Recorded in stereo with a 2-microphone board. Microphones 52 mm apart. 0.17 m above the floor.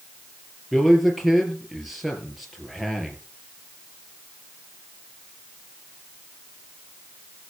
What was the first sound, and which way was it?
A man speaking, centre (ahead or behind).